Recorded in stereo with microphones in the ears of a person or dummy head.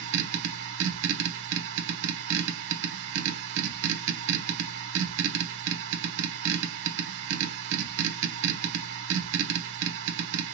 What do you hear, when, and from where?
0.0 s a machine running: 65° right (ahead or behind), 1.0 m